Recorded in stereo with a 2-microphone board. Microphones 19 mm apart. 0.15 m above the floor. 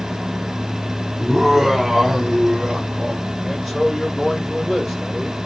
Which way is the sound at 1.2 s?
Centre (ahead or behind).